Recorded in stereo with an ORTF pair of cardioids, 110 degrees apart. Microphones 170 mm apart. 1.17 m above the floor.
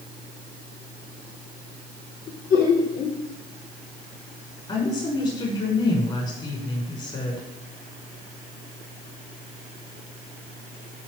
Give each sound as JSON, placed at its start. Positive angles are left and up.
{"t": 2.3, "sound": "laughter", "azimuth_deg": 60, "distance_m": 3.5}
{"t": 4.7, "sound": "a woman speaking", "azimuth_deg": 30, "distance_m": 5.5}